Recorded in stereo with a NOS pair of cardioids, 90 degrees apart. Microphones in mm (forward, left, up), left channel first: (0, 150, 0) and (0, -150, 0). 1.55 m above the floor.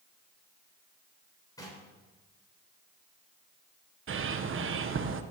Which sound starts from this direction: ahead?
Knocking, at 1.6 s.